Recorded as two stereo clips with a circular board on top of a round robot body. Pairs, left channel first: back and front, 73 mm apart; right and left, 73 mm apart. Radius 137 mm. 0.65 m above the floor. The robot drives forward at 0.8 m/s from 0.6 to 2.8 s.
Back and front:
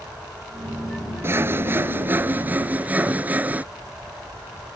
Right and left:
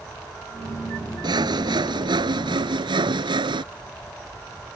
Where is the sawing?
60° left; by 3.6 s 70° left.